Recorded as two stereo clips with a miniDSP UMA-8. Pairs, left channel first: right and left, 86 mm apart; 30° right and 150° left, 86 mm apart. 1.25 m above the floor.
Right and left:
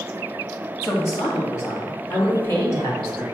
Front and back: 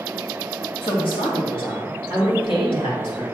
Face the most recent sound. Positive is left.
turn(degrees=-45)